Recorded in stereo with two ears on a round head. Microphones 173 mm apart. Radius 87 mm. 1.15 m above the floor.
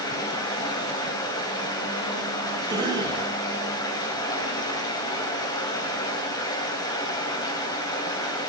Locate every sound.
0.0 s running water: 20° left (ahead or behind), 3.5 m
2.7 s a cough: 25° right (ahead or behind), 5 m